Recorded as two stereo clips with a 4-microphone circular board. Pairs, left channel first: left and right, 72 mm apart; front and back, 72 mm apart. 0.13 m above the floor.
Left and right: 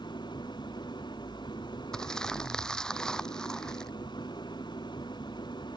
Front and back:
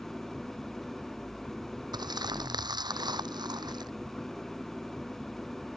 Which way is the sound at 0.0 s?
85° left.